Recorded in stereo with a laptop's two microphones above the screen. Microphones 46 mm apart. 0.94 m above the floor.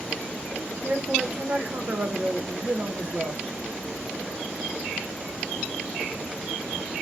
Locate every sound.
0.8 s a man speaking: 45° right (ahead or behind), 0.8 m